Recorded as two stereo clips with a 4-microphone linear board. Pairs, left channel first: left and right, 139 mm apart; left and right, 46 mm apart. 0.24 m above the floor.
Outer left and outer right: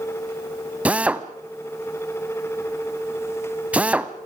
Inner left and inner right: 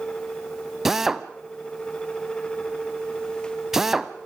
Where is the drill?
10° right (ahead or behind), 0.9 m.